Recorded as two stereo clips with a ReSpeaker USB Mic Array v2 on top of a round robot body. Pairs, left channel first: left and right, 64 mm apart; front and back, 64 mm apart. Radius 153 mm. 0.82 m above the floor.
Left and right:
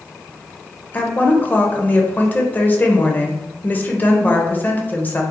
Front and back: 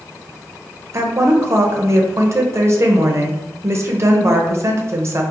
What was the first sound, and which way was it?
A woman speaking, 145° left.